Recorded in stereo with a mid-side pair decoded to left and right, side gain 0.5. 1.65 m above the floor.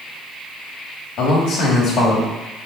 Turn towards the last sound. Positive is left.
turn(degrees=70)